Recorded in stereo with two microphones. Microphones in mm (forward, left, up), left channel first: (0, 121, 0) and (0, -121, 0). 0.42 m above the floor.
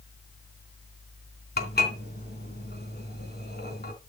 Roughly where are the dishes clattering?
Left.